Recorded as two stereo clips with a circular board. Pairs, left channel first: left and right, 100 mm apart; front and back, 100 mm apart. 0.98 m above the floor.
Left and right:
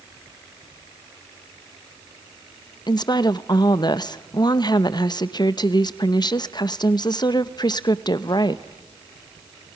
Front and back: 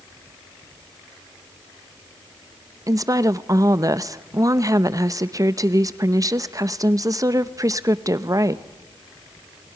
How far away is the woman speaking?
About 0.7 m.